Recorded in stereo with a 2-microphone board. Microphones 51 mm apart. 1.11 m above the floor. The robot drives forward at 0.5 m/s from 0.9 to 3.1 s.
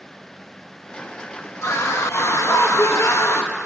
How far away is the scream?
About 1.3 m.